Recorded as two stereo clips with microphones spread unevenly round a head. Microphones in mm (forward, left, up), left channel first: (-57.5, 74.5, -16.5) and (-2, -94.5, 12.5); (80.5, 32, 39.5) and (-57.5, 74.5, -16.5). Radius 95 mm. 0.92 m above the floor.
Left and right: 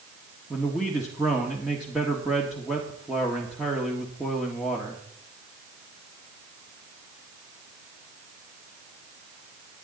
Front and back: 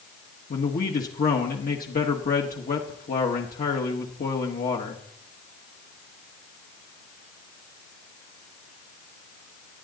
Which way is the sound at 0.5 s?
20° left.